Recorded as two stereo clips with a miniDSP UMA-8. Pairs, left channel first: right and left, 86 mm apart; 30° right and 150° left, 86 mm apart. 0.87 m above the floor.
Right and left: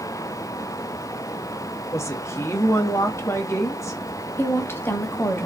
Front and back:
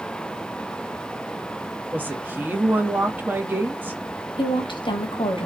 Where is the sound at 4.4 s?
30° right, 1.1 m.